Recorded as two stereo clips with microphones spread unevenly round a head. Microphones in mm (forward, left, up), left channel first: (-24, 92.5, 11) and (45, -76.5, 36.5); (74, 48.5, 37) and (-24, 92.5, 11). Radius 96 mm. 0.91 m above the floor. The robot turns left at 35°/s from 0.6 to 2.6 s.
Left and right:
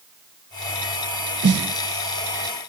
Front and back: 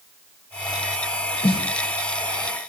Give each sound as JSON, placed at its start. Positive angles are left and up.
{"t": 1.4, "sound": "a snare drum", "azimuth_deg": -75, "distance_m": 0.8}